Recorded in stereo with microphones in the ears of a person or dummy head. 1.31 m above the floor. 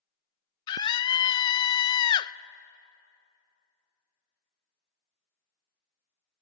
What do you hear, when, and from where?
0.7 s a scream: 25° left (ahead or behind), 0.5 m